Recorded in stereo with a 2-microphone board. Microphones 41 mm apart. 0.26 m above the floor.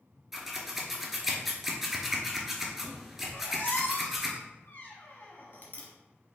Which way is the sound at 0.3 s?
5° right (ahead or behind).